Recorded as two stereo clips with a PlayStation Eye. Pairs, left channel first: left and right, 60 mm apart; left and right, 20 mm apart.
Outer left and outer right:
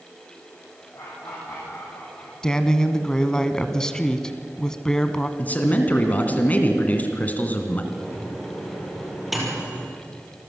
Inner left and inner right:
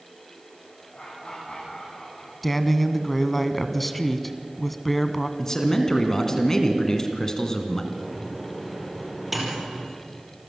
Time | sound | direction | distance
0.9 | laughter | 75° left (ahead or behind) | 6.5 m
2.4 | a woman speaking | 10° left (ahead or behind) | 1.0 m
5.4 | a man speaking | 25° left (ahead or behind) | 2 m
7.9 | a microwave | 5° right (ahead or behind) | 4 m